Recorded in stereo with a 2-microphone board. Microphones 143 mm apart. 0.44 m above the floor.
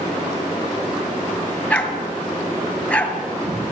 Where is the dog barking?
10° left (ahead or behind), 3 m.